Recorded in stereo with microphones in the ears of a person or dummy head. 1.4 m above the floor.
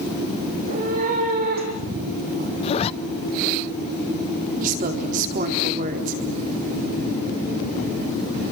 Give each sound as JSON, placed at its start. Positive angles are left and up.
{"t": 0.5, "sound": "a cat meowing", "side_deg": -50, "distance_m": 6.0}
{"t": 2.6, "sound": "a zipper", "side_deg": 35, "distance_m": 0.7}
{"t": 4.6, "sound": "a woman speaking", "side_deg": -40, "distance_m": 4.0}